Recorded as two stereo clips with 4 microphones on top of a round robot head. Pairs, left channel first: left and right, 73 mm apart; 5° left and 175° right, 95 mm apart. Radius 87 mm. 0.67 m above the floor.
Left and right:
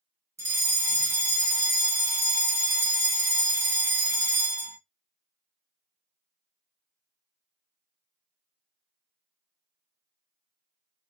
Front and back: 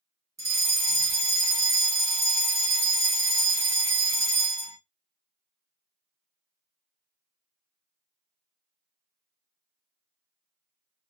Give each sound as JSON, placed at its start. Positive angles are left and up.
{"t": 0.4, "sound": "a fire alarm", "azimuth_deg": -130, "distance_m": 2.5}